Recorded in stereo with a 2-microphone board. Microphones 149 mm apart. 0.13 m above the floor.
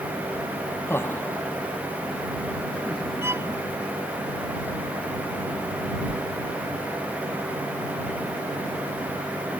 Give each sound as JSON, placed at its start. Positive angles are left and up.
{"t": 0.9, "sound": "laughter", "side_deg": 15}
{"t": 3.2, "sound": "a violin", "side_deg": -20}
{"t": 6.1, "sound": "a whoosh", "side_deg": -5}